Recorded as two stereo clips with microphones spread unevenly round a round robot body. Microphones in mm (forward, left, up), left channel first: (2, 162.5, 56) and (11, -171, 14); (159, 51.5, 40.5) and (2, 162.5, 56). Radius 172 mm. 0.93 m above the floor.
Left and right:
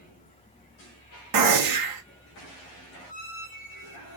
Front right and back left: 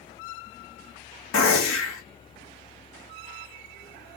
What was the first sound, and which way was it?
A gunshot, 60° right.